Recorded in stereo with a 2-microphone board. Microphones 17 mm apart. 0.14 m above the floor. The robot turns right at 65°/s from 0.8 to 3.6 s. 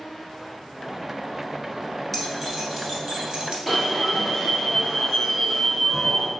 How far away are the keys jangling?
About 1.3 m.